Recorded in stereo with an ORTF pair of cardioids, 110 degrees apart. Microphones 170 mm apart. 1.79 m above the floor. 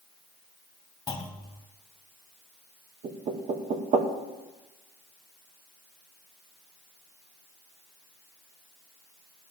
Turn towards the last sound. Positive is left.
turn(degrees=-45)